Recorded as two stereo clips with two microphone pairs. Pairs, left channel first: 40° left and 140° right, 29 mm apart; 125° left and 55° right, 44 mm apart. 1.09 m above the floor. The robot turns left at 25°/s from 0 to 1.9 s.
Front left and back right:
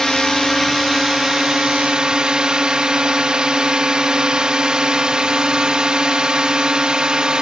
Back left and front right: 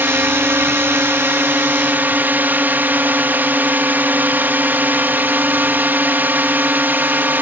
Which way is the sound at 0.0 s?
40° right.